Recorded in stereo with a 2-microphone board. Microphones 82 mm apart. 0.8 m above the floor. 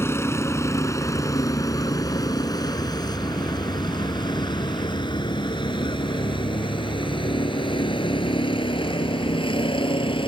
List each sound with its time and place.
0.0 s a vehicle: 30° left (ahead or behind); by 10.3 s 80° left